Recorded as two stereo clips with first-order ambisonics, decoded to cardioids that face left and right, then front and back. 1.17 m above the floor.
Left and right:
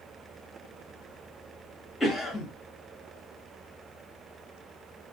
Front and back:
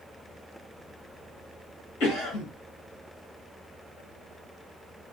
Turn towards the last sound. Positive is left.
turn(degrees=10)